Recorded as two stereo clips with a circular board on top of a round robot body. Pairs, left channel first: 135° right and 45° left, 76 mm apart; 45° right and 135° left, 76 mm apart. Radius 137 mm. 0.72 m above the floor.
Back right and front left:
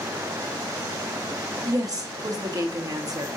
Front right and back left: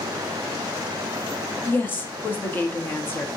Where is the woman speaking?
15° left, 1.4 m.